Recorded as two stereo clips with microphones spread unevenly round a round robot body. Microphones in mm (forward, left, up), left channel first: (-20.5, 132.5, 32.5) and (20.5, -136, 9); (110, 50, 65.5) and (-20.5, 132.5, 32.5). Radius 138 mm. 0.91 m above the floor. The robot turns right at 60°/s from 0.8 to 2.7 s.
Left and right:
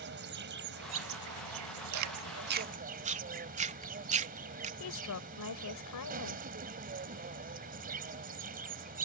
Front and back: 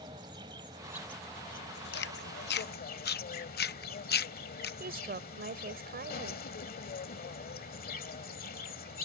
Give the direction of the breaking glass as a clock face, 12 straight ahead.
I don't hear breaking glass.